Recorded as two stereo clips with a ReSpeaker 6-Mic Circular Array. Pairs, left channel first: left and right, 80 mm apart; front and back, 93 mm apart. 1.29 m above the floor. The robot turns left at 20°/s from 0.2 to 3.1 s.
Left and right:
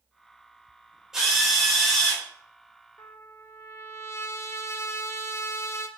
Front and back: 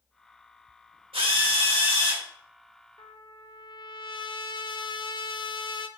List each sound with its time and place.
1.1 s a drill: 175° right, 3.5 m; by 2.2 s 165° left, 3.5 m
3.0 s a trumpet: 35° left, 0.7 m